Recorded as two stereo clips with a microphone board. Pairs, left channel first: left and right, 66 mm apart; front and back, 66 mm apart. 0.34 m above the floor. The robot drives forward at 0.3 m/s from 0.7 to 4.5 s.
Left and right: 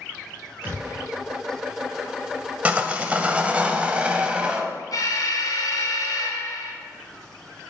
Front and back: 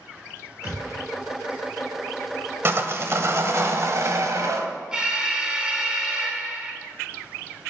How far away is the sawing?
About 1.2 m.